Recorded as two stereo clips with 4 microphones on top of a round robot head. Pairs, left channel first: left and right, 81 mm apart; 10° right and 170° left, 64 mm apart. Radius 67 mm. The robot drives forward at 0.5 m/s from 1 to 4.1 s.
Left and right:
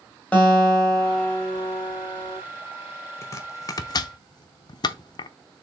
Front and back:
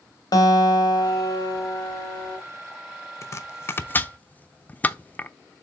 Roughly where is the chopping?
Ahead left.